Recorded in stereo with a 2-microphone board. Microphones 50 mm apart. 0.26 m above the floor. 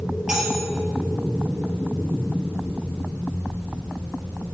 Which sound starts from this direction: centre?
Cutlery clinking, at 0.3 s.